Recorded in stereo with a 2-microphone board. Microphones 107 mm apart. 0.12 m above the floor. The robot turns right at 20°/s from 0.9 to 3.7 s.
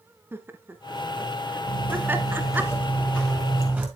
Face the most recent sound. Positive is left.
turn(degrees=-10)  # may be behind; listen again after turning